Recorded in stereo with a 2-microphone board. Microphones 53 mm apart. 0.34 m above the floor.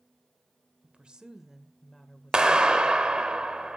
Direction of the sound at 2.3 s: 15° right (ahead or behind).